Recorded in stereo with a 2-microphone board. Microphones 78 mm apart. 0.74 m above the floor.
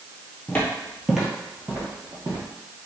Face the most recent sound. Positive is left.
turn(degrees=-45)  # may be behind; listen again after turning